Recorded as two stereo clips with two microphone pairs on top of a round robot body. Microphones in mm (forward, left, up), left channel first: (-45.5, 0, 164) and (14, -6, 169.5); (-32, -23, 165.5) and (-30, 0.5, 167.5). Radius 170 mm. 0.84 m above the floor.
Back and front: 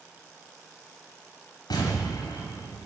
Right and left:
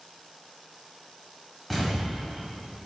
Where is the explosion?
170° left, 1.0 m.